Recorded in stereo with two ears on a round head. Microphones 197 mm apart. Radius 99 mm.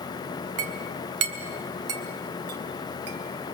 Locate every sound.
0.6 s a clink: 75° right (ahead or behind), 2 m